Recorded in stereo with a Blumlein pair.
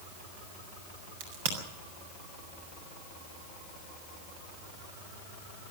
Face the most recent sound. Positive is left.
turn(degrees=-55)